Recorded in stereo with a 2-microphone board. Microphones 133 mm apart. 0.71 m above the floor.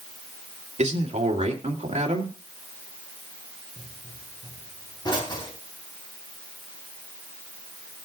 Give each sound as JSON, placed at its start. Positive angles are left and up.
{"t": 0.8, "sound": "a man speaking", "side_deg": -55, "distance_m": 2.0}
{"t": 3.8, "sound": "a pop", "side_deg": 35, "distance_m": 3.5}